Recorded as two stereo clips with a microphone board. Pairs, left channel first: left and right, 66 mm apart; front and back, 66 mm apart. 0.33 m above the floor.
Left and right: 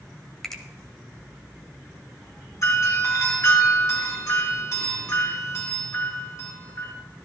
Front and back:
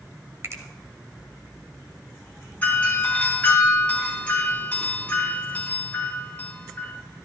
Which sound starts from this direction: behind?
A finger snap, at 0.4 s.